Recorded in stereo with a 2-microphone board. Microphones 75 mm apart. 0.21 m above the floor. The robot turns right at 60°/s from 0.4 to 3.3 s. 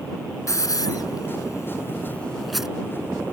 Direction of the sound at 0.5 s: 45° left (ahead or behind).